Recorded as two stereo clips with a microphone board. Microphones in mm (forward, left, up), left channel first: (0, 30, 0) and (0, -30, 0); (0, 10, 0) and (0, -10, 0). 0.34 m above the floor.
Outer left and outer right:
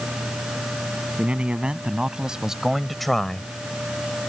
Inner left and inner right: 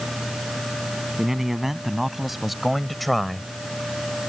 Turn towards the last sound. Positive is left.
turn(degrees=15)  # may be behind; listen again after turning